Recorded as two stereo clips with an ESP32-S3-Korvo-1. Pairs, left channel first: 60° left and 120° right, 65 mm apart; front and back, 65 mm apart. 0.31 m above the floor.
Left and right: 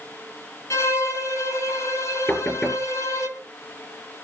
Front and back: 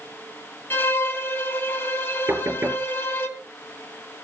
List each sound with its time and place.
0.7 s a violin: 45° left, 2.5 m
2.3 s knocking: 125° left, 5 m